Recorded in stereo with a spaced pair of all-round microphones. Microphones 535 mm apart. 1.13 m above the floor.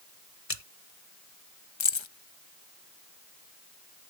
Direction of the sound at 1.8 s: 60° left (ahead or behind).